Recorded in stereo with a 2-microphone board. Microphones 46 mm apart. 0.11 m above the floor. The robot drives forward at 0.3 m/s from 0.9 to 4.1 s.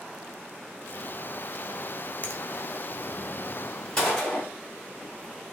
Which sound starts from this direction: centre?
A gunshot, at 4.0 s.